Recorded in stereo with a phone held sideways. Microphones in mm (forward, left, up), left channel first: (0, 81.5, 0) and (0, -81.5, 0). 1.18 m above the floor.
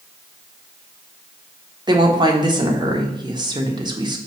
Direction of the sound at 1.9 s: 25° right (ahead or behind).